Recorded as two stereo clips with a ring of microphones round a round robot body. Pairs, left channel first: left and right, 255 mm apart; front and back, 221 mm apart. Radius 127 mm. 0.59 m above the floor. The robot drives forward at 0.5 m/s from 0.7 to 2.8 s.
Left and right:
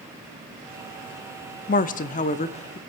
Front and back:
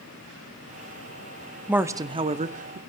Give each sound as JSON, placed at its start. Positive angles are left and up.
{"t": 1.7, "sound": "a woman speaking", "azimuth_deg": 100, "distance_m": 0.7}